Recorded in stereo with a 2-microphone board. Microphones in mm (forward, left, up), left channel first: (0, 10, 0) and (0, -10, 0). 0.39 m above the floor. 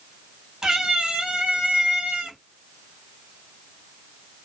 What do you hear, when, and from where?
0.6 s a cat meowing: 40° right (ahead or behind), 1.1 m; by 2.4 s 75° right (ahead or behind), 1.1 m